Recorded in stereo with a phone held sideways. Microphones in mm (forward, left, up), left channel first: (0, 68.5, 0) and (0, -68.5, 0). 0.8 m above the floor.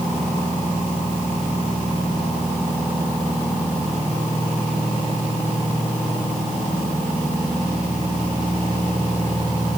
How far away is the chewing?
No chewing in this recording.